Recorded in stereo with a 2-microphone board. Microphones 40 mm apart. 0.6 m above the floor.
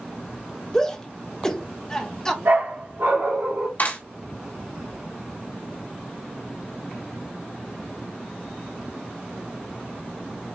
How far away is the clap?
About 3 m.